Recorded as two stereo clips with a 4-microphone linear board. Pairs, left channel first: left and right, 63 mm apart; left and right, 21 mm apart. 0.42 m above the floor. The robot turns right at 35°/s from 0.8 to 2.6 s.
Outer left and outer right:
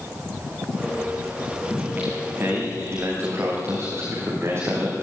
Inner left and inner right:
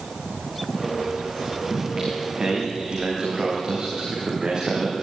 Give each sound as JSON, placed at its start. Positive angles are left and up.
{"t": 1.7, "sound": "singing", "azimuth_deg": -170, "distance_m": 7.0}